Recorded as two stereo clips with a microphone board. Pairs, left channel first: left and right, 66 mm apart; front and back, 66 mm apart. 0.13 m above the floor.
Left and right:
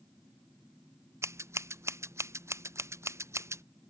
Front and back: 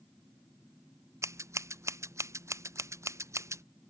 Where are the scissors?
135° right.